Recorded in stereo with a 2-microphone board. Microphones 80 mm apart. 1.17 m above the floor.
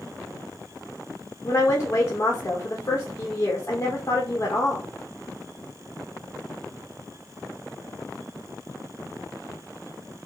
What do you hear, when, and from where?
1.4 s a woman speaking: 35° left (ahead or behind), 2.0 m